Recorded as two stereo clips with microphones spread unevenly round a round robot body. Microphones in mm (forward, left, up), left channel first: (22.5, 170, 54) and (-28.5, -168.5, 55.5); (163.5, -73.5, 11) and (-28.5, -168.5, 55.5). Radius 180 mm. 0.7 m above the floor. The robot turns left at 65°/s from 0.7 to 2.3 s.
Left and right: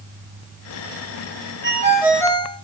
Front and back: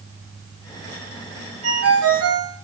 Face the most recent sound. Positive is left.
turn(degrees=160)